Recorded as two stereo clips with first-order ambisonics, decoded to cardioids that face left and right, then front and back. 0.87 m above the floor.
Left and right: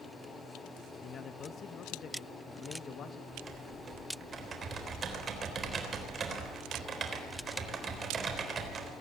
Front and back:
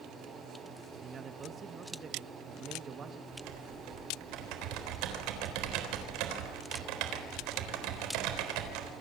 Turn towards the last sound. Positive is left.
turn(degrees=-160)